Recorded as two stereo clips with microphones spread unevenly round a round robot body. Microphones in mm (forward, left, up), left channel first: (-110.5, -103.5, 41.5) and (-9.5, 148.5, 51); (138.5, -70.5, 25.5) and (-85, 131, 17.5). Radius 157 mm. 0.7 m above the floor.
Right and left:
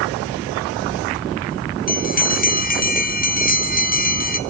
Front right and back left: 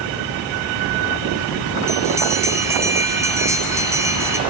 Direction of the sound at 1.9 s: 145° right.